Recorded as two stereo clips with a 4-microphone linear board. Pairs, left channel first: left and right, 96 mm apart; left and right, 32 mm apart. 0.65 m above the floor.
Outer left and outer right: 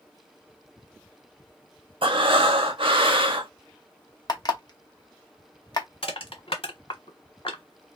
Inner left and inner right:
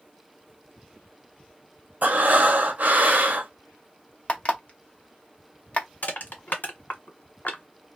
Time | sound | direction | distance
2.0 | breathing | 65° right (ahead or behind) | 0.6 m
4.3 | an alarm clock | 45° left (ahead or behind) | 0.6 m
6.0 | crushing | 75° left (ahead or behind) | 1.4 m